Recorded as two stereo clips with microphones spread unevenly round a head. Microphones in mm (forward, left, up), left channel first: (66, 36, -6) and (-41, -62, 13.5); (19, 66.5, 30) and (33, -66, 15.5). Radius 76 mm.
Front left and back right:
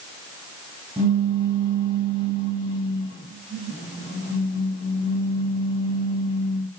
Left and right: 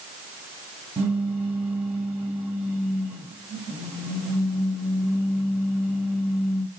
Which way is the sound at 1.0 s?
5° right.